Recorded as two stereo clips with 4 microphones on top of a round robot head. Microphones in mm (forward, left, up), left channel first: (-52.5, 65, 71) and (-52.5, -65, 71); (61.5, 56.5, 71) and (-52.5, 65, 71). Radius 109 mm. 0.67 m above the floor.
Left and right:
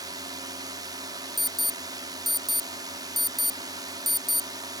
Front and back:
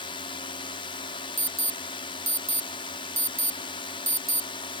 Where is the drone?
35° right.